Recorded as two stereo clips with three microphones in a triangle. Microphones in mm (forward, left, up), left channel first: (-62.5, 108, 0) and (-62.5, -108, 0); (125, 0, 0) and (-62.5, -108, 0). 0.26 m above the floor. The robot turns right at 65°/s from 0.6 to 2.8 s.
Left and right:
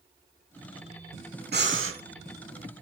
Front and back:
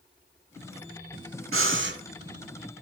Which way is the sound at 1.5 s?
135° right.